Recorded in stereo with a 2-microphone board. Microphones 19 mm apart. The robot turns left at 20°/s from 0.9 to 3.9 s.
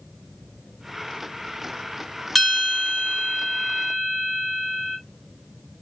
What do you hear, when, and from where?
2.4 s a bell: 15° left, 1.0 m; by 5.0 s 20° right, 1.0 m